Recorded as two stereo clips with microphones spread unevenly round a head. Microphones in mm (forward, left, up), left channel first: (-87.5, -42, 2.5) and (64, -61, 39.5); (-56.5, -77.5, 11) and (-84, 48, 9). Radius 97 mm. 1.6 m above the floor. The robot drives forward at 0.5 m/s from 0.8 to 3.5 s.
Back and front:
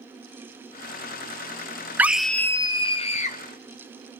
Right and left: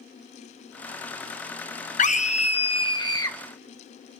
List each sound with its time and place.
2.0 s a scream: 75° right, 0.6 m; by 3.4 s 140° right, 0.8 m